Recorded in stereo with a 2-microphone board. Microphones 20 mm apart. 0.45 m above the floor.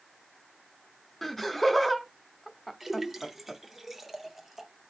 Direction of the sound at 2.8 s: 15° right (ahead or behind).